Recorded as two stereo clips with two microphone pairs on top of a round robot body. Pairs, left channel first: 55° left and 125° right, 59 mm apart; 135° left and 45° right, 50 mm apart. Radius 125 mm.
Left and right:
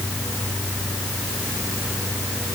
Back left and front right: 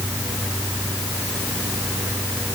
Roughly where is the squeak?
No squeak in this recording.